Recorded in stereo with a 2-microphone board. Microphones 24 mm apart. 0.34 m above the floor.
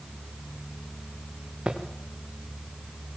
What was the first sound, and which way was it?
Footsteps, 45° right (ahead or behind).